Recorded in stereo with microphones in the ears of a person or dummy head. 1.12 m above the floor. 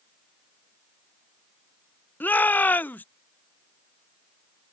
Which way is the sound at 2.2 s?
10° left (ahead or behind).